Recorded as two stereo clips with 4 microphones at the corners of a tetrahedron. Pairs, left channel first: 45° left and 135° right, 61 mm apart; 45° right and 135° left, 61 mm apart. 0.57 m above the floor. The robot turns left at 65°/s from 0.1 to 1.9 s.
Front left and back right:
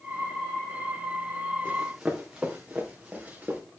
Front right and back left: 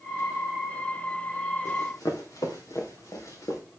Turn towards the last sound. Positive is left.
turn(degrees=-65)